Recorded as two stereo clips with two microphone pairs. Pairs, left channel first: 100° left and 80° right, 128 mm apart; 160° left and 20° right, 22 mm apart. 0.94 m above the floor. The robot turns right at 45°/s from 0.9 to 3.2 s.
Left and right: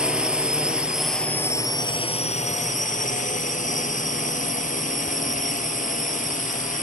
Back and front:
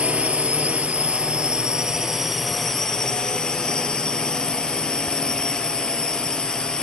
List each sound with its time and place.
0.0 s a drone: 5° left; by 6.8 s 110° left